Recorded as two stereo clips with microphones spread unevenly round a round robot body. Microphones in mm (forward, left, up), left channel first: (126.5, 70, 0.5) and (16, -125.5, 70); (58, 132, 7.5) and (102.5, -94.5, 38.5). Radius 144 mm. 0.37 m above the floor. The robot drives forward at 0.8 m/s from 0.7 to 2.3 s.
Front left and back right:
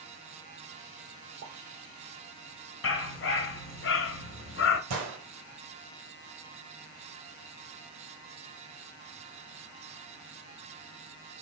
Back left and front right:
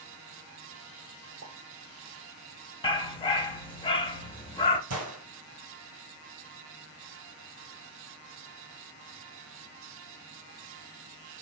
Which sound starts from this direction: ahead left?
A dog barking, at 2.8 s.